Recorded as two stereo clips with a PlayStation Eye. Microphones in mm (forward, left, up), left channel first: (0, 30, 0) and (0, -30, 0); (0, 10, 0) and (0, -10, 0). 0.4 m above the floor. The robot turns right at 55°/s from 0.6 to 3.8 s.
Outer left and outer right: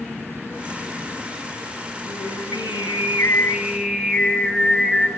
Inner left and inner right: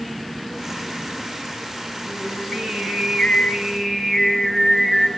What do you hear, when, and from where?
2.0 s singing: 80° left, 6.5 m; by 5.1 s straight behind, 6.5 m